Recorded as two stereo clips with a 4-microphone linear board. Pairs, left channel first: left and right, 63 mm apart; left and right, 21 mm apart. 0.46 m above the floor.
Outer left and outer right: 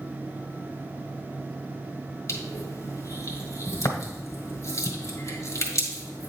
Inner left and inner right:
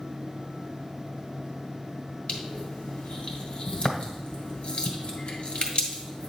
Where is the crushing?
55° left (ahead or behind), 1.7 m.